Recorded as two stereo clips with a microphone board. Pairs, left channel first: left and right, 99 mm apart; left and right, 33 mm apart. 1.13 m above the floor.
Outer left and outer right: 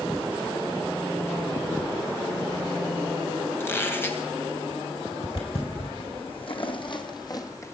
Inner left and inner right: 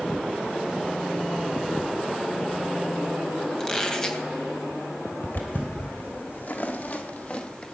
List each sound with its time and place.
3.6 s a squeak: 20° left (ahead or behind), 2.5 m
5.2 s footsteps: 70° left (ahead or behind), 3.5 m; by 7.7 s 25° left (ahead or behind), 1.7 m